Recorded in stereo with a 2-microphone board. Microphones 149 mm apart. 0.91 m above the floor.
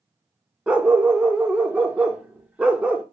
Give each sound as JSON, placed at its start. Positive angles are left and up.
{"t": 0.7, "sound": "a dog barking", "side_deg": -10, "distance_m": 0.6}